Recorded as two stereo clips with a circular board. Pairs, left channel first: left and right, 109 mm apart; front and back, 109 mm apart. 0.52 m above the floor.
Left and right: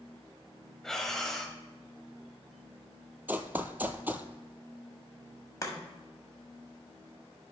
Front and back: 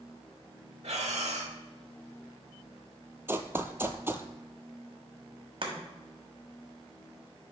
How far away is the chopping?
About 1.4 m.